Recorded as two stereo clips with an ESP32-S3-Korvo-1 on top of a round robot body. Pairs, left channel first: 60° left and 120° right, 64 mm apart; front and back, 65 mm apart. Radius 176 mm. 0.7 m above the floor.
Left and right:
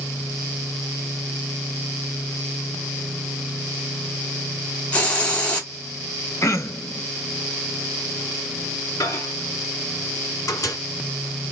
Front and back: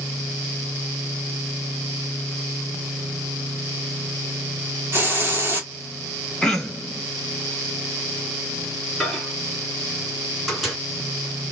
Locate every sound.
4.9 s a hiss: 125° left, 2.5 m
6.4 s throat clearing: 80° left, 1.4 m
9.0 s a microwave: 95° left, 3 m